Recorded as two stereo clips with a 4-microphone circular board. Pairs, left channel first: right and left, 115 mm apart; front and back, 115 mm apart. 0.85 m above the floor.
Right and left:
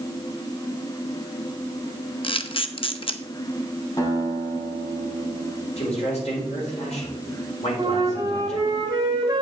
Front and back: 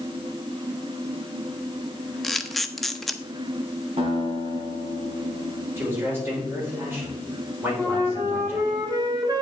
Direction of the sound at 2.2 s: 90° right.